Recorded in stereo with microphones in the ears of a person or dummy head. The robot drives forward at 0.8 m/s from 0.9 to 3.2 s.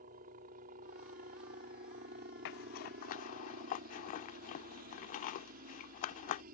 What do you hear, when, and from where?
0.0 s a helicopter: 50° right (ahead or behind)
2.5 s a zipper: 65° left (ahead or behind); by 6.4 s 50° left (ahead or behind)